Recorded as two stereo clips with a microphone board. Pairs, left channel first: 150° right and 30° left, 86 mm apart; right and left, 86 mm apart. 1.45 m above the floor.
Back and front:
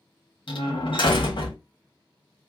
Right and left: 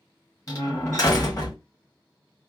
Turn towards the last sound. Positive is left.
turn(degrees=-140)